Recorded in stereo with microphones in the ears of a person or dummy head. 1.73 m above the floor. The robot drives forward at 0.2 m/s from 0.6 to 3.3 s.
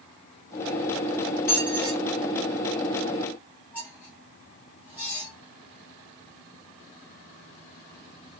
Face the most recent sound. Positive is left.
turn(degrees=5)  # may be behind; listen again after turning